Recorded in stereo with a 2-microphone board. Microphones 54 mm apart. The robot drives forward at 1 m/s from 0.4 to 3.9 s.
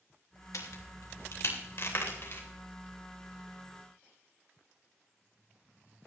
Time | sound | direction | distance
0.5 | a crack | 80° left | 2.5 m